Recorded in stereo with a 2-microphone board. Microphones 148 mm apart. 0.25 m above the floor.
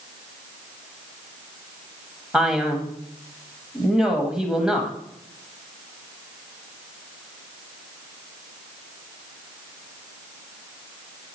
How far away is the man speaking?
About 1.3 m.